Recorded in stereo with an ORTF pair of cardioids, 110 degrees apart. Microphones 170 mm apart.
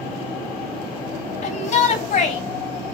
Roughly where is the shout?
Ahead left.